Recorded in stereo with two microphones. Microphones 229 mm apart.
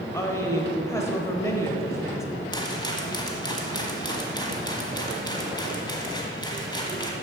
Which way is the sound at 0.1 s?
15° left (ahead or behind).